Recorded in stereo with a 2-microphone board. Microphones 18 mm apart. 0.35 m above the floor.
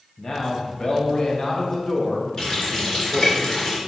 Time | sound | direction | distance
0.2 | a man speaking | 35° left (ahead or behind) | 2 m
2.4 | a running tap | 25° left (ahead or behind) | 2.5 m